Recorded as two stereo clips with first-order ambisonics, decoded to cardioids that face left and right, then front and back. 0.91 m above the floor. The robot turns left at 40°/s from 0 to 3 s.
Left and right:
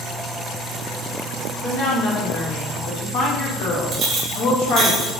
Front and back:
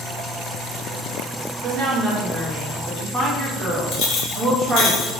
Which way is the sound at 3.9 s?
35° right.